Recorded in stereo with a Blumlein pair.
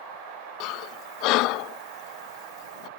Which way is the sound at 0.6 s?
40° left.